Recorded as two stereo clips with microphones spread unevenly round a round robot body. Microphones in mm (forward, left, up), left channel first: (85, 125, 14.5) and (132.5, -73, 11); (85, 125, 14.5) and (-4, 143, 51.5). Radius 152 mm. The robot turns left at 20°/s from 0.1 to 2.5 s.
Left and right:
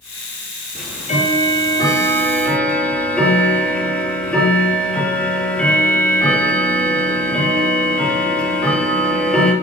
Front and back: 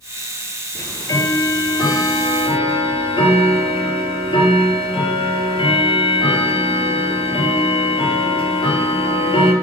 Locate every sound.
0.8 s ticking: 55° left, 2 m; by 9.5 s 20° left, 2 m